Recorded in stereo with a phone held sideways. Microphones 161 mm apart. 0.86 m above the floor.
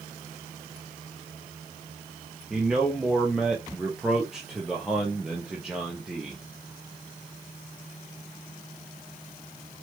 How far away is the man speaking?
About 0.9 m.